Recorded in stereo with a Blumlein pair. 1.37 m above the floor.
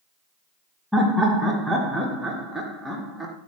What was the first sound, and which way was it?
Laughter, 5° right.